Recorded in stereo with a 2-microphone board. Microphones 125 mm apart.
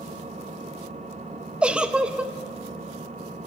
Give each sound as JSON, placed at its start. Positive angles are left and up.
{"t": 0.0, "sound": "an engine running", "side_deg": -65, "distance_m": 2.5}
{"t": 1.6, "sound": "a giggle", "side_deg": -10, "distance_m": 1.0}